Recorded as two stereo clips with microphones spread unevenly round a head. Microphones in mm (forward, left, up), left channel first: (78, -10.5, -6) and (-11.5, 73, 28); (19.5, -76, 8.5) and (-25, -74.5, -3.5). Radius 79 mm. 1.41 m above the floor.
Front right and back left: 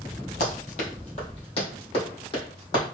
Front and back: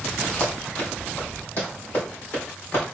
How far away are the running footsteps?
About 2.5 m.